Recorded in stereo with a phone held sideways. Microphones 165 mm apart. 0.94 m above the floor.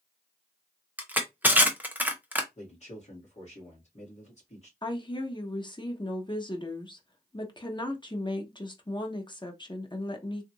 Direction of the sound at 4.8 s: 30° left (ahead or behind).